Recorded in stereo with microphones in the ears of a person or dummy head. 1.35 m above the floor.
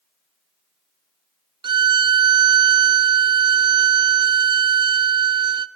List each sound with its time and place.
1.6 s a violin: 20° right (ahead or behind), 0.5 m